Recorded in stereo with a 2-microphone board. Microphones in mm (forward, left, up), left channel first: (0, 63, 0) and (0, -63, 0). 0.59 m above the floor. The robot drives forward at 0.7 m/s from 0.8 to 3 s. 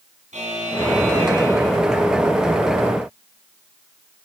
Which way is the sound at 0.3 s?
65° right (ahead or behind).